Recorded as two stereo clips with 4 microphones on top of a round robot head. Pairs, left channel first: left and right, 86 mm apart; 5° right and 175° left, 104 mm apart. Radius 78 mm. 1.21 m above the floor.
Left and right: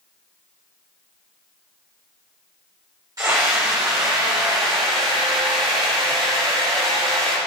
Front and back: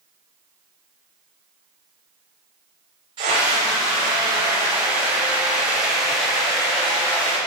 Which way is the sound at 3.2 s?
135° right.